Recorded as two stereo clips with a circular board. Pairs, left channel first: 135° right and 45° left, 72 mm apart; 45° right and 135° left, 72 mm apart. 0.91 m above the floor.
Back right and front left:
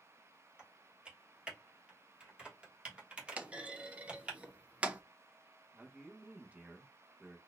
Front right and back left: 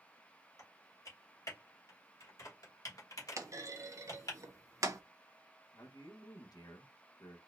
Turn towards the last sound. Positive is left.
turn(degrees=-25)